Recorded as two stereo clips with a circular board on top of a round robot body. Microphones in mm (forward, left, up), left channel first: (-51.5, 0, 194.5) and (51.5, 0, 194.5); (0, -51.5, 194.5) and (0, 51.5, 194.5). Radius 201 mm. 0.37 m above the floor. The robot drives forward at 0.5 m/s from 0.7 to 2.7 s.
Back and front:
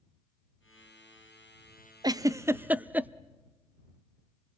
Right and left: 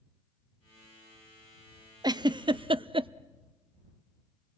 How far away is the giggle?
About 0.9 m.